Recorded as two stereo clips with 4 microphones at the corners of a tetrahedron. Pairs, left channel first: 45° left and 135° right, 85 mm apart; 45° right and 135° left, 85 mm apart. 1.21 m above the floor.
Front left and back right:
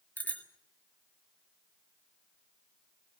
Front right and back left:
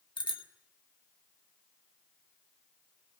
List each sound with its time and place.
0.2 s a bicycle bell: 25° right, 2 m